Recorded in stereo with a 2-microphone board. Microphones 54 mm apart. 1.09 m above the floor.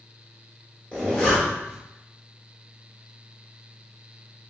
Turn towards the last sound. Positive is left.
turn(degrees=20)  # may be behind; listen again after turning